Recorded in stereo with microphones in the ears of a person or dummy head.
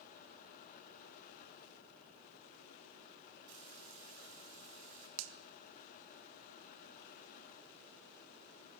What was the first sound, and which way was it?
Frying, 85° right.